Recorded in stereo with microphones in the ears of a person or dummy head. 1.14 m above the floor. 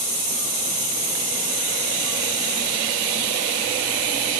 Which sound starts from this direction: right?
An insect, at 0.0 s.